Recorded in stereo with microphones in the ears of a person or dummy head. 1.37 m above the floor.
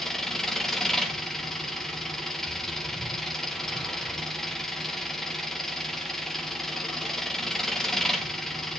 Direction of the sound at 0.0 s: Centre (ahead or behind).